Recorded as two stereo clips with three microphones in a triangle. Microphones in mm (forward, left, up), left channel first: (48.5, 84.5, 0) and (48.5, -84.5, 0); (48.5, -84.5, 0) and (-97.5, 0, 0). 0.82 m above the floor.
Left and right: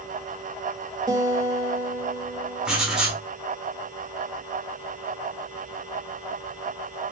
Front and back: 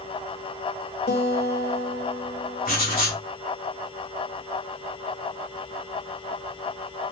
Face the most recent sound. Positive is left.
turn(degrees=-5)